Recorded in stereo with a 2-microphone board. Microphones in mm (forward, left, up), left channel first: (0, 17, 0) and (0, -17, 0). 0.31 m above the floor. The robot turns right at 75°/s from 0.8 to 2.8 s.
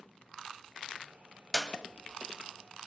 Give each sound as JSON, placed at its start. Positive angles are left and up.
{"t": 1.5, "sound": "a clap", "side_deg": 15, "distance_m": 1.3}